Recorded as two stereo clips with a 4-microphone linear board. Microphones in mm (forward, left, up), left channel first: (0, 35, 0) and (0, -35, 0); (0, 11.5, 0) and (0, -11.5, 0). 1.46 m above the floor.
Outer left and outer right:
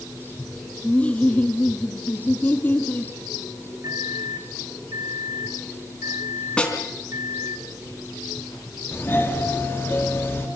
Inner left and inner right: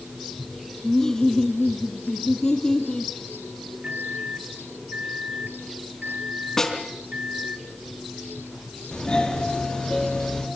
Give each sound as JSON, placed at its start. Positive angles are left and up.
{"t": 0.8, "sound": "laughter", "side_deg": 15, "distance_m": 2.5}
{"t": 3.8, "sound": "a microwave", "side_deg": -55, "distance_m": 1.2}
{"t": 6.6, "sound": "a snare drum", "side_deg": 15, "distance_m": 4.0}
{"t": 8.9, "sound": "a doorbell", "side_deg": 30, "distance_m": 5.0}